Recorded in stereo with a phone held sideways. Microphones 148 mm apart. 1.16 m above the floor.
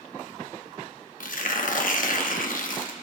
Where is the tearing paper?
65° left (ahead or behind), 1.0 m.